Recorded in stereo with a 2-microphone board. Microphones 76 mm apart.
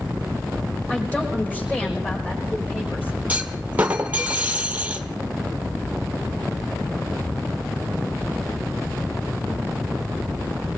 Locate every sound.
0.9 s a woman speaking: 20° left (ahead or behind), 4 m; by 3.2 s 25° left (ahead or behind), 6 m
3.3 s a clunk: 20° right (ahead or behind), 1.1 m